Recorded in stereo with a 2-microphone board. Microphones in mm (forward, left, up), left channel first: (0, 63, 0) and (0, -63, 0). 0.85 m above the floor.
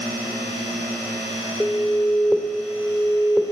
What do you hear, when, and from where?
1.6 s an alarm: 10° left (ahead or behind), 1.8 m